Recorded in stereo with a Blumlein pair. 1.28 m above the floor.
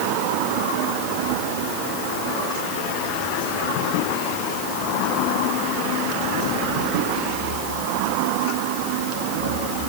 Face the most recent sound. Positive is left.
No sound to turn to.